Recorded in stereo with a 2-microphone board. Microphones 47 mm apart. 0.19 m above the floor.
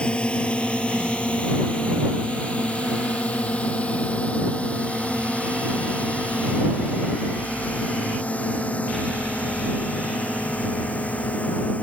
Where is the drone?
20° left (ahead or behind); by 11.8 s 30° left (ahead or behind).